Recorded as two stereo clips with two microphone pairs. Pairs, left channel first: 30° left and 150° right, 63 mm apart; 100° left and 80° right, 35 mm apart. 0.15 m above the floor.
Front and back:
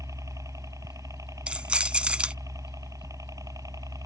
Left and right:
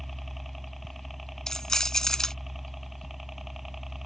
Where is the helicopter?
170° right; by 4.1 s 165° right.